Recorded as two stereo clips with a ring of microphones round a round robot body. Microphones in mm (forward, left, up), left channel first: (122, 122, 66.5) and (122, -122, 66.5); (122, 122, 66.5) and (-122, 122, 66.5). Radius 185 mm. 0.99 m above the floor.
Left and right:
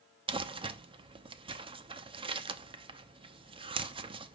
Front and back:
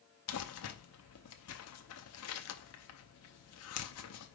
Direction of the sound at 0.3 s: 25° right.